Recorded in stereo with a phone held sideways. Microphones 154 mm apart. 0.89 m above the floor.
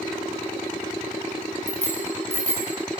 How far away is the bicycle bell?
About 3.5 m.